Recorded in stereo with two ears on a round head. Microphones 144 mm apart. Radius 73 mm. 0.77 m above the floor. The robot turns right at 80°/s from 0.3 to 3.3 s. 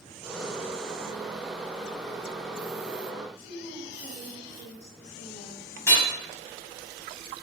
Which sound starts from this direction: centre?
Hammering, at 5.9 s.